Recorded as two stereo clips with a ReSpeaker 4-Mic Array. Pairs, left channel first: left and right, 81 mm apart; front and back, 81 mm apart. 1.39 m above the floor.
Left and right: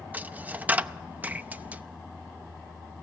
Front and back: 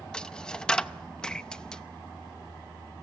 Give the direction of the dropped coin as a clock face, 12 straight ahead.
2 o'clock.